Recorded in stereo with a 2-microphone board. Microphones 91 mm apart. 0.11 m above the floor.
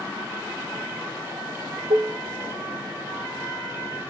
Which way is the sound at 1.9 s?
65° right (ahead or behind).